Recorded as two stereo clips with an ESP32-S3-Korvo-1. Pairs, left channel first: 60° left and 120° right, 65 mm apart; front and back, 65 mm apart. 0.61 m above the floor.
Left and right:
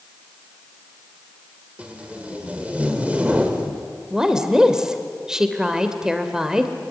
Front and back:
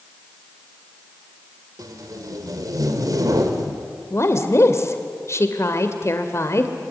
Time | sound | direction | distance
1.8 | tape being pulled | 170° left | 2.5 m
4.1 | a woman speaking | 40° right | 2.5 m